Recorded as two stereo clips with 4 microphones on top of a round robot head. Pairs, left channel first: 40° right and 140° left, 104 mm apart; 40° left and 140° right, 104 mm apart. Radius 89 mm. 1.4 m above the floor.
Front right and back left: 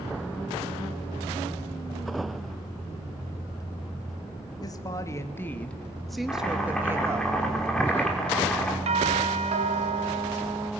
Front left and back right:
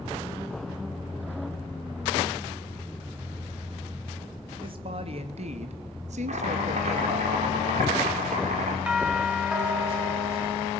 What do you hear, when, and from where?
4.6 s a woman speaking: 95° right, 2 m; by 7.3 s 160° right, 2 m
6.3 s chopping: 125° right, 5 m
8.9 s a doorbell: 140° left, 2.5 m